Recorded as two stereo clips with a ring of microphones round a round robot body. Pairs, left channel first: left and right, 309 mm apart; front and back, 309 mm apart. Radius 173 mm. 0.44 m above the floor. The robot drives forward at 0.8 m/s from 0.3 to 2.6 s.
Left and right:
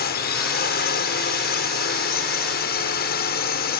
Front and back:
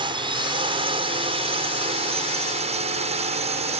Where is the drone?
115° left; by 3.8 s 125° left.